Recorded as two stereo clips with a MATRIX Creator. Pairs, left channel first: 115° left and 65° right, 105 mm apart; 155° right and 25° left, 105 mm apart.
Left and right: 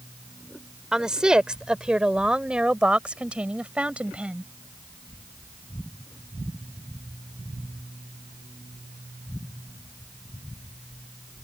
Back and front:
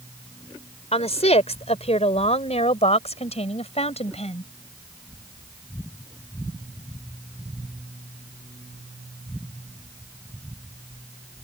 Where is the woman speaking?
150° right; by 4.5 s 145° right.